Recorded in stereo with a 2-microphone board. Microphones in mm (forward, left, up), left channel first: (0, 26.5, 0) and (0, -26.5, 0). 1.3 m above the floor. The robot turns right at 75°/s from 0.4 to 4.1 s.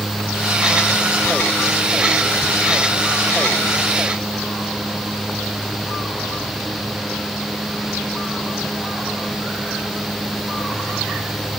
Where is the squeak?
No squeak in this recording.